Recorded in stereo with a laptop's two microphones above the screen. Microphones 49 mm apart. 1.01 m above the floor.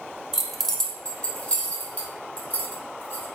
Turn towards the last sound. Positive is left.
turn(degrees=45)  # may be behind; listen again after turning